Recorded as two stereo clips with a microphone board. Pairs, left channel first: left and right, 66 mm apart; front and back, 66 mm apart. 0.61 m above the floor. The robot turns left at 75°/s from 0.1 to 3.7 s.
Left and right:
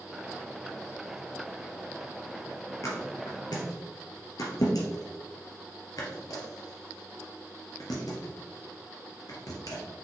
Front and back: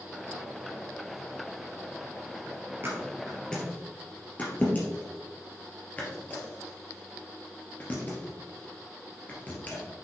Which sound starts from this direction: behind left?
A thud, at 2.8 s.